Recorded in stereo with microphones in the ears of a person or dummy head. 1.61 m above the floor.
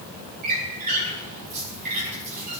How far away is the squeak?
About 7.5 m.